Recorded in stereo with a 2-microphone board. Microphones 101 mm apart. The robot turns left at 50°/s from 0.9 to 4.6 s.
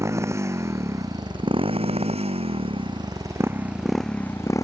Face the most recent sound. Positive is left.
turn(degrees=150)